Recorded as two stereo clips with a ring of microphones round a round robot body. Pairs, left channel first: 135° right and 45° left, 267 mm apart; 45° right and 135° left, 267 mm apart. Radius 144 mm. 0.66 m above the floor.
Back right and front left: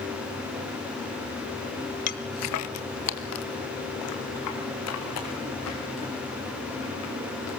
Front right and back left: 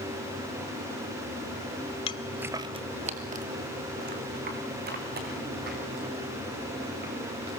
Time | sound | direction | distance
2.1 | footsteps | 100° right | 0.7 m